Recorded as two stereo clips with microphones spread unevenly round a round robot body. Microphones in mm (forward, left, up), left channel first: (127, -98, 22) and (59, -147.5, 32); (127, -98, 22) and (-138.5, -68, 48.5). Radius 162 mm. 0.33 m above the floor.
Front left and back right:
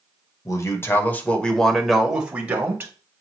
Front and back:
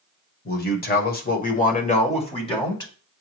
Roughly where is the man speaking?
Ahead left.